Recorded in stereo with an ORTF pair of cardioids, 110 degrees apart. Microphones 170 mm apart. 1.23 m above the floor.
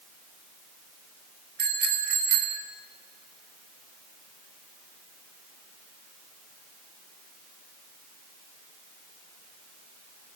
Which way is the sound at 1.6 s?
70° right.